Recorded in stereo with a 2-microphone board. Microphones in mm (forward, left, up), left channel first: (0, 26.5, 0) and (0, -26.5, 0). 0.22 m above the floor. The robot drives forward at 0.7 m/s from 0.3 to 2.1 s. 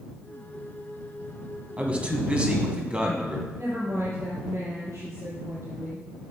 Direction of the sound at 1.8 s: 25° right (ahead or behind).